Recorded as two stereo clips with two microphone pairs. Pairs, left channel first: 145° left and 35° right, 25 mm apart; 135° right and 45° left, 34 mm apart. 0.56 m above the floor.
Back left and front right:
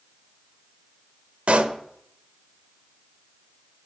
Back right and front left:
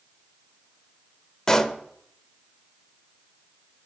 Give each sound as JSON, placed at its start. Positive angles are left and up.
{"t": 1.5, "sound": "a pop", "azimuth_deg": -60, "distance_m": 0.5}